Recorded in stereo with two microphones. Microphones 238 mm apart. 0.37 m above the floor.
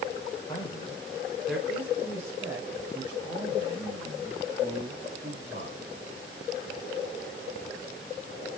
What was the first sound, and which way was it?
A man speaking, 20° left (ahead or behind).